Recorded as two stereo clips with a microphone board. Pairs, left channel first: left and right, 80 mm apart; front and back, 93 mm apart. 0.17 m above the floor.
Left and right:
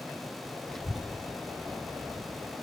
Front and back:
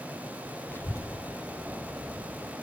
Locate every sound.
0.7 s a child speaking: 20° left, 0.7 m; by 2.5 s 30° right, 2.5 m